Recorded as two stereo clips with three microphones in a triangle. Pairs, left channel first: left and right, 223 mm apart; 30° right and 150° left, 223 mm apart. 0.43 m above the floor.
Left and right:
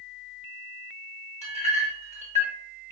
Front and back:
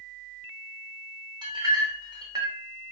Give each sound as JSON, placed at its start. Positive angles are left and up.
{"t": 1.4, "sound": "a clink", "azimuth_deg": -140, "distance_m": 0.6}